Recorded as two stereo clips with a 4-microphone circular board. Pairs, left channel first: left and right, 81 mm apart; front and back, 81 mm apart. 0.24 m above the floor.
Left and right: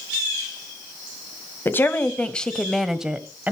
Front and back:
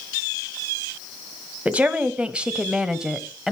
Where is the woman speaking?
120° left, 1.3 m; by 3.5 s 105° right, 1.2 m.